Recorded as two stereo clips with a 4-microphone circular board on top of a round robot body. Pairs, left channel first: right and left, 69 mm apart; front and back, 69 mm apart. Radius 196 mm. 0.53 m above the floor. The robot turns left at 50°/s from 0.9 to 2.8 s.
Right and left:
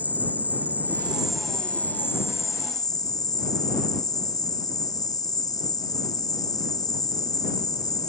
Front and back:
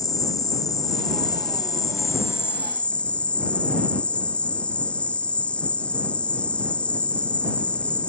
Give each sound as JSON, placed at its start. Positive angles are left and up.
{"t": 0.0, "sound": "an insect", "azimuth_deg": 25}